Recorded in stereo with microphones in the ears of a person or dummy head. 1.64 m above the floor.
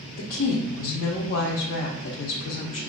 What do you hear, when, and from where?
0.2 s a woman speaking: 65° left (ahead or behind), 0.6 m